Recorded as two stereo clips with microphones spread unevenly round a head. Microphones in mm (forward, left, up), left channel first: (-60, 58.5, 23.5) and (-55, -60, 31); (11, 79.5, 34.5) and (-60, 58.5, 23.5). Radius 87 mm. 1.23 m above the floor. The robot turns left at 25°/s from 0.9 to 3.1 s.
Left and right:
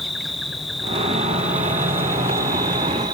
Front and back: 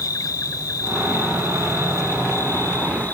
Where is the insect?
5° left, 1.0 m; by 3.2 s 50° right, 1.0 m.